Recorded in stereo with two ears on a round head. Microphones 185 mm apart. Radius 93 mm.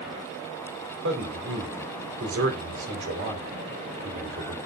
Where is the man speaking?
60° right (ahead or behind), 4.5 m.